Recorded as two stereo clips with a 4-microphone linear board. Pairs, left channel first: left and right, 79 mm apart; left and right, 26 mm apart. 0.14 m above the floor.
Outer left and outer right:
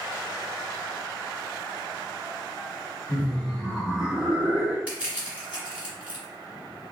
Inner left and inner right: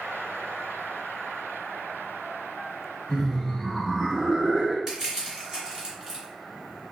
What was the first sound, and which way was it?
Laughter, 15° left (ahead or behind).